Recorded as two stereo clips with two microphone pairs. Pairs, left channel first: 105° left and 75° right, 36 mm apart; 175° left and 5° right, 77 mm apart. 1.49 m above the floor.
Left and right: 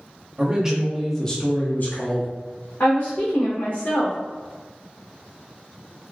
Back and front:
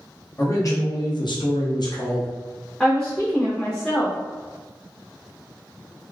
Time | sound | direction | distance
0.4 | a man speaking | 140° right | 0.7 m
2.8 | a woman speaking | 95° left | 0.7 m